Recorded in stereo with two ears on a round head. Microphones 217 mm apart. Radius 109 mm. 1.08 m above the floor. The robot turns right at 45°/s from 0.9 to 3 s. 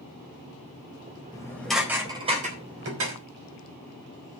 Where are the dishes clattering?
20° left (ahead or behind), 3.5 m; by 3.2 s 55° right (ahead or behind), 3.5 m.